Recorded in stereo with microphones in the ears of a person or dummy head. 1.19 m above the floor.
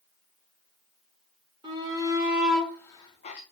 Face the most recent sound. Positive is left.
turn(degrees=40)  # may be behind; listen again after turning